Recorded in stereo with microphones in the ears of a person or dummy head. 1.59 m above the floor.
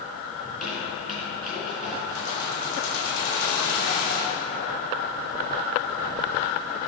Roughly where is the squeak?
Centre.